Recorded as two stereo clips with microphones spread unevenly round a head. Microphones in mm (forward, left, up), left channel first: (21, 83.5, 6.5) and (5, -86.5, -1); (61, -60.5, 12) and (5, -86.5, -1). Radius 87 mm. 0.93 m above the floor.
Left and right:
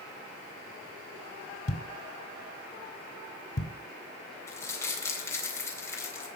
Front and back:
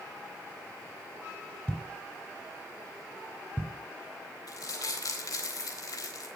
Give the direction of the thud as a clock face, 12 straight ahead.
9 o'clock.